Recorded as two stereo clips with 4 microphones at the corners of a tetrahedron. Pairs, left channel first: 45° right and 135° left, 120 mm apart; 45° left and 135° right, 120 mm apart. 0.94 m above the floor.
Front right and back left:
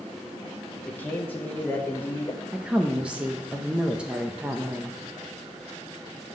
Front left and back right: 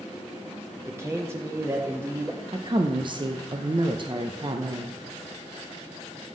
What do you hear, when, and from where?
0.8 s a man speaking: 100° right, 0.7 m
2.5 s a woman speaking: 150° right, 0.5 m